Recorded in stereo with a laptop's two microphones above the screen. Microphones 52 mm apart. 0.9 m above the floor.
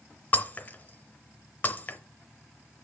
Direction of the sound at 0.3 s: 35° left (ahead or behind).